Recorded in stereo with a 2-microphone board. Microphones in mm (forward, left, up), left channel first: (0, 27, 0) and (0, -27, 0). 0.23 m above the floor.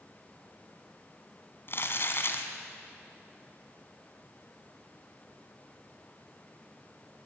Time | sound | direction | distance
1.7 | crumpling | 50° left (ahead or behind) | 2 m